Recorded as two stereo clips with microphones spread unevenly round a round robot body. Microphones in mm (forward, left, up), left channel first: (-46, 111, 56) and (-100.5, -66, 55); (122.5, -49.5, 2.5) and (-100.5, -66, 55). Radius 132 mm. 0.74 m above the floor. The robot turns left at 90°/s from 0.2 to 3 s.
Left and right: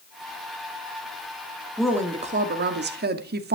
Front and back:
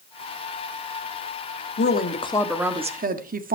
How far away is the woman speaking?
About 1.6 m.